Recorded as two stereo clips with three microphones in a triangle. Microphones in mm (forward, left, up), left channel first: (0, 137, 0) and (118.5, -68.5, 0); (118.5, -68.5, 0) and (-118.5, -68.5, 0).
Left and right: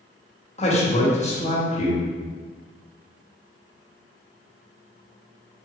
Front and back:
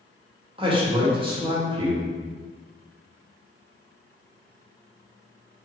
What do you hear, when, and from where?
0.6 s a man speaking: 140° left, 0.7 m